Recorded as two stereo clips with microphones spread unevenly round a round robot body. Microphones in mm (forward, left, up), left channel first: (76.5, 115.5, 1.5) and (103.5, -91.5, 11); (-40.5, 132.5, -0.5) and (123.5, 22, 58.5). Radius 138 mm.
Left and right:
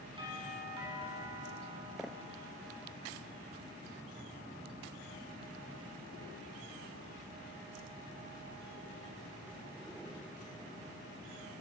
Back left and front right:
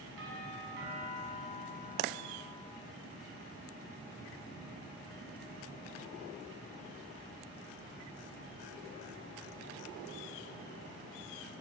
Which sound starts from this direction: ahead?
A doorbell, at 0.2 s.